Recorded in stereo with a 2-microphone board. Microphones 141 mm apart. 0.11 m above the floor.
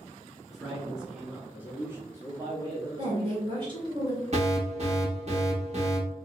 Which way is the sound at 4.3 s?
50° right (ahead or behind).